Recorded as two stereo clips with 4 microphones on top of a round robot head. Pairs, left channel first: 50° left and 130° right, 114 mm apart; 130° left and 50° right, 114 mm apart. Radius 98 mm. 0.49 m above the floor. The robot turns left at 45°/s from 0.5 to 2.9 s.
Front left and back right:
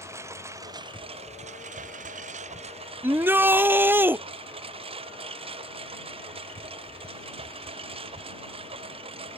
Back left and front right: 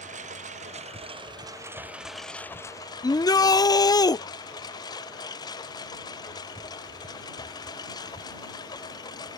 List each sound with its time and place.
0.0 s a lawn mower: 65° right; by 9.4 s 170° right
3.0 s a shout: 165° left